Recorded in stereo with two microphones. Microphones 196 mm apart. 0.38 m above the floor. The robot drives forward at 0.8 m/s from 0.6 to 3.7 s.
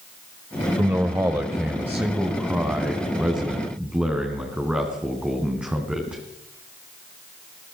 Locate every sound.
0.8 s a man speaking: 15° right (ahead or behind), 1.3 m; by 6.2 s 5° right (ahead or behind), 3.5 m